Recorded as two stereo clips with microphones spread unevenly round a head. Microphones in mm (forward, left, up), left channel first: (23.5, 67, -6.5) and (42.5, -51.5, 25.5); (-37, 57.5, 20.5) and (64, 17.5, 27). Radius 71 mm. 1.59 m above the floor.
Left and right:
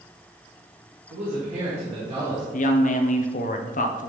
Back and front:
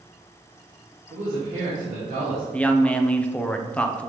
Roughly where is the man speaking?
Ahead right.